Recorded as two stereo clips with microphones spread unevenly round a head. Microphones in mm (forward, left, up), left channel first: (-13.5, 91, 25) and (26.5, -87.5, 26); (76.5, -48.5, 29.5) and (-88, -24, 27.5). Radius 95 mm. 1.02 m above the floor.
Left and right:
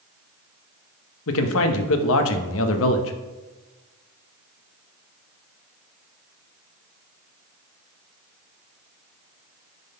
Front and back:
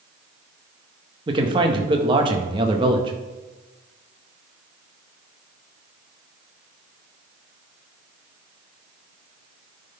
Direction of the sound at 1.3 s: 105° left.